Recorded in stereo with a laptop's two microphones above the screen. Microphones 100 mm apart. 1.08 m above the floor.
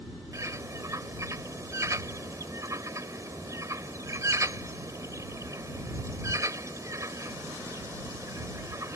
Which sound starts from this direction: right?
A bird, at 0.3 s.